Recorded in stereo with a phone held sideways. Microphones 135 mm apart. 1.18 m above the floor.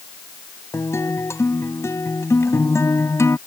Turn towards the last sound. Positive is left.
turn(degrees=20)  # may be behind; listen again after turning